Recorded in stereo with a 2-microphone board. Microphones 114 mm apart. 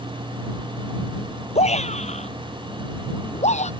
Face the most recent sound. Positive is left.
turn(degrees=80)